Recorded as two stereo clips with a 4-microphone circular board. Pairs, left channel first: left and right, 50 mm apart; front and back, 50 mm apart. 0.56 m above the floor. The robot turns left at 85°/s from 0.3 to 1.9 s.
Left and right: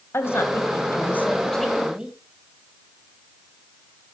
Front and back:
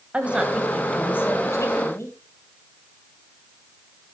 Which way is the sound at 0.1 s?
115° left.